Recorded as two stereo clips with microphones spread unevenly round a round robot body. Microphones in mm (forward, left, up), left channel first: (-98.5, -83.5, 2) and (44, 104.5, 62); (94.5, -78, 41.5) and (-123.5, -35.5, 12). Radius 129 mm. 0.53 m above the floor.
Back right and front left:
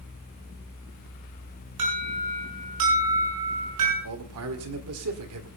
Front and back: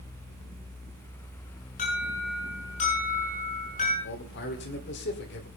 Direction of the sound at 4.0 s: 30° left.